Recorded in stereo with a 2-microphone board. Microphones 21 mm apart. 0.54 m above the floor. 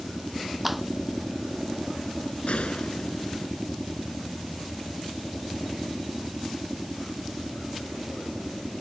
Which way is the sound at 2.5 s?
80° left.